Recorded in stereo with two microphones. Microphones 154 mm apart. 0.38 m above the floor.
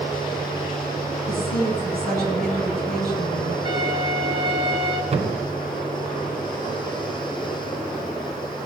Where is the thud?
40° right (ahead or behind), 1.9 m.